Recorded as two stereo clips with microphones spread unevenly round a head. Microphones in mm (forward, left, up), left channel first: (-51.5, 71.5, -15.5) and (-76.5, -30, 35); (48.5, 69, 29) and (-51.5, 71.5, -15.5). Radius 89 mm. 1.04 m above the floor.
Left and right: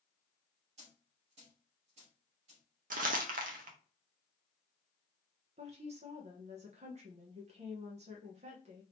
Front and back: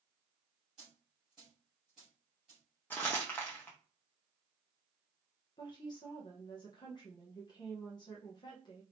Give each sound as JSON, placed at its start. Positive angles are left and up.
{"t": 0.8, "sound": "a dropped coin", "azimuth_deg": -90, "distance_m": 2.5}
{"t": 2.9, "sound": "crumpling", "azimuth_deg": -90, "distance_m": 0.7}
{"t": 5.6, "sound": "a woman speaking", "azimuth_deg": -70, "distance_m": 0.8}